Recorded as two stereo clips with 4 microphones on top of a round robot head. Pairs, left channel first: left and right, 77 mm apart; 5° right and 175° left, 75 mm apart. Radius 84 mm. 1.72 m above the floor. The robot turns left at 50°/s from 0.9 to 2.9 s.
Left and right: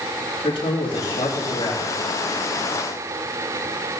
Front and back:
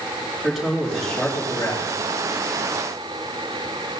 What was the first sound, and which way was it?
A man speaking, 90° left.